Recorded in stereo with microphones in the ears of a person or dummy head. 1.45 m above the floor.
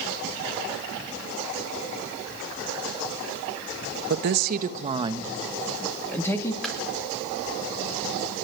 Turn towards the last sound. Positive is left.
turn(degrees=0)  # may be behind; listen again after turning